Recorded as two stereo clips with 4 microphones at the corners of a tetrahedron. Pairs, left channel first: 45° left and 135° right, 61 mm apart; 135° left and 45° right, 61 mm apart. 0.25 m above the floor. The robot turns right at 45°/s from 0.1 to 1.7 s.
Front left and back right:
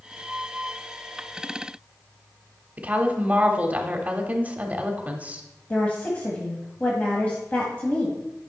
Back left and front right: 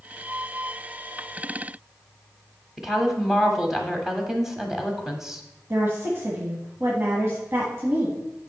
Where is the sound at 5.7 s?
15° right, 1.4 m.